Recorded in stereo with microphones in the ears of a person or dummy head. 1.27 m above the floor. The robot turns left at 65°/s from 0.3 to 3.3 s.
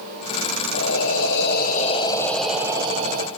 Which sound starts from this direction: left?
Breathing, at 0.7 s.